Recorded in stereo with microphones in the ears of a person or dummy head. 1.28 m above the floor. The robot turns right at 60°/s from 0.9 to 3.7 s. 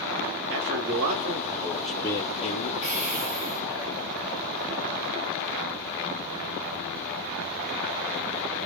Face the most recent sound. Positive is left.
turn(degrees=-80)